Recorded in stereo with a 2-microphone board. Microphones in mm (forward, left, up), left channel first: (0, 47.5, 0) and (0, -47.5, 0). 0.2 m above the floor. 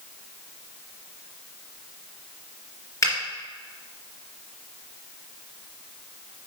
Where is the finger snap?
35° left (ahead or behind), 2.5 m.